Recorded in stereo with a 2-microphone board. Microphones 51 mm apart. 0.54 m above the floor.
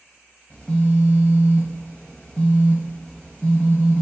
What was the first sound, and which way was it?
A phone buzzing, 25° left (ahead or behind).